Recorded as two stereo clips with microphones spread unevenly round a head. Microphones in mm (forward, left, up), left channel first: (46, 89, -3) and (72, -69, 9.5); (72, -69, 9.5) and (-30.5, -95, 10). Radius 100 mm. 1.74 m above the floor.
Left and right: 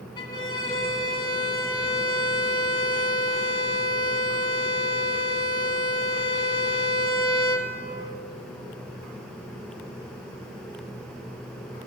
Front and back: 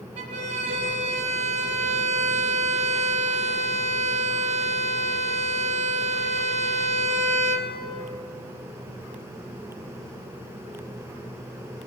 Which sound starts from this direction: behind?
A violin, at 0.2 s.